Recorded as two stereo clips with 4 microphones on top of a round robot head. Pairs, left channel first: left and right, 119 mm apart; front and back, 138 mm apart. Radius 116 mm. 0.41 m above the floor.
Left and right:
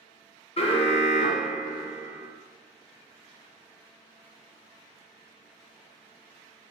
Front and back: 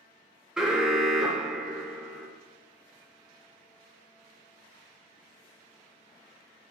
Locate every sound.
0.6 s an alarm: 95° left, 0.8 m